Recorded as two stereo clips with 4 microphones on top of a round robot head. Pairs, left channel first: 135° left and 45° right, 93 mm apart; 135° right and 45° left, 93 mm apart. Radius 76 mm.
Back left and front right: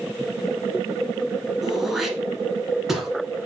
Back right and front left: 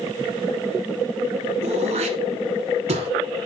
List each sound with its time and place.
1.6 s throat clearing: 40° left, 1.2 m